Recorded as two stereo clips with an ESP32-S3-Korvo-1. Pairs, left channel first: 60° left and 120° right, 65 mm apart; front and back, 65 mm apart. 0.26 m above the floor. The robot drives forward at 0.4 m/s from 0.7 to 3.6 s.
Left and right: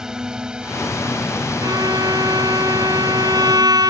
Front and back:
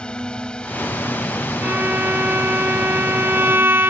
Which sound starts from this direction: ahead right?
A drone, at 0.0 s.